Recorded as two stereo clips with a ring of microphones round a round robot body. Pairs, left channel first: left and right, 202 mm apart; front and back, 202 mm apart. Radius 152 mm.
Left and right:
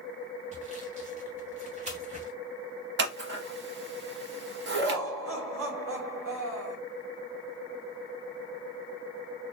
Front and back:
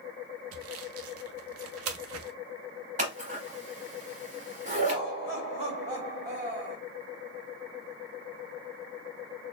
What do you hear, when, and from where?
0.5 s sawing: 155° right, 0.6 m
3.0 s scissors: 120° right, 0.7 m
4.7 s laughter: 110° right, 2.5 m